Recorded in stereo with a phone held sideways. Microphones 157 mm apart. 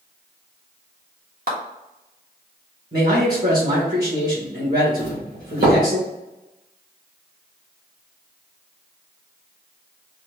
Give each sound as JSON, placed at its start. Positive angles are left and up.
{"t": 1.5, "sound": "a clap", "side_deg": -70, "distance_m": 1.5}
{"t": 2.9, "sound": "a man speaking", "side_deg": -75, "distance_m": 1.8}
{"t": 5.0, "sound": "a doorbell", "side_deg": -75, "distance_m": 1.9}